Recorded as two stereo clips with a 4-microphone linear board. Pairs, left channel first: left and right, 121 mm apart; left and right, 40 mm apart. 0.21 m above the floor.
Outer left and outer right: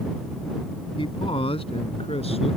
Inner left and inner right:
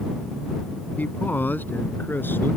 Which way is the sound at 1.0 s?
45° left (ahead or behind).